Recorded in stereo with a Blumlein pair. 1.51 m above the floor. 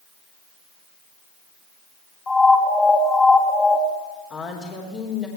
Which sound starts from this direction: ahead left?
A woman speaking, at 4.3 s.